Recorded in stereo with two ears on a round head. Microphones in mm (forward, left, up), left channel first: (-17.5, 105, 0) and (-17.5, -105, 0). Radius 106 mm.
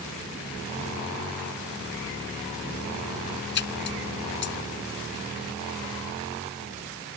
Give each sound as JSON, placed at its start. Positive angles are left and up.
{"t": 3.5, "sound": "a splash", "side_deg": 55}